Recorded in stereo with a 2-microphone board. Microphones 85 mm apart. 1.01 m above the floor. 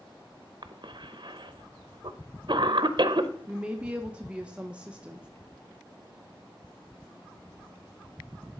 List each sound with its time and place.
0.6 s a cough: 60° right (ahead or behind), 0.7 m
3.5 s a woman speaking: 15° right (ahead or behind), 0.6 m